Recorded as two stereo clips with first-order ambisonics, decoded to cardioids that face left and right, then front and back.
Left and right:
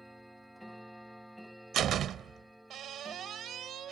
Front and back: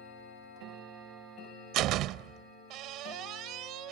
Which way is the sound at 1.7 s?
145° right.